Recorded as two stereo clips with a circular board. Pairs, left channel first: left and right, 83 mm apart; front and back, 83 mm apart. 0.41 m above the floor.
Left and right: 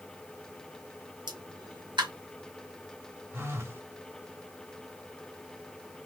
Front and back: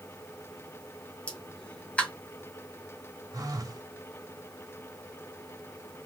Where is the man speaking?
No man speaking in this recording.